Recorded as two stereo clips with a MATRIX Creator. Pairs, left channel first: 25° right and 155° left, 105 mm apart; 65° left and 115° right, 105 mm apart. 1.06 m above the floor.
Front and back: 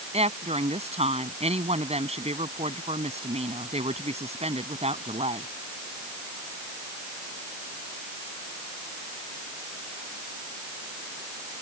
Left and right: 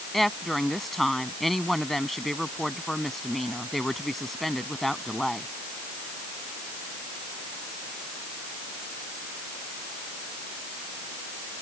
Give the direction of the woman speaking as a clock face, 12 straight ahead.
7 o'clock.